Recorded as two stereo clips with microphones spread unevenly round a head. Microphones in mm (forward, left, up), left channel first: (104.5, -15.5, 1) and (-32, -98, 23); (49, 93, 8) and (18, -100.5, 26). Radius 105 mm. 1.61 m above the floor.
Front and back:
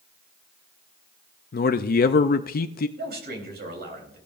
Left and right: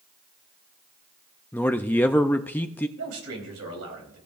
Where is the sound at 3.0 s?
130° right, 4 m.